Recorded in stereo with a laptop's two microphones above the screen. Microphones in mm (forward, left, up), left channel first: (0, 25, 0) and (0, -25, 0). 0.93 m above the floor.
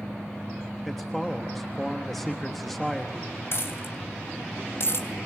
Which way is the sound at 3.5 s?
55° left (ahead or behind).